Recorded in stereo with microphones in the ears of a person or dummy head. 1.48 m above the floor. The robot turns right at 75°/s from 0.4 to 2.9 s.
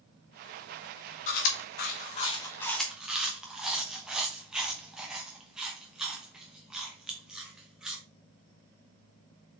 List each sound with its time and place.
1.3 s chewing: 50° left (ahead or behind), 0.9 m; by 8.0 s 5° right (ahead or behind), 0.9 m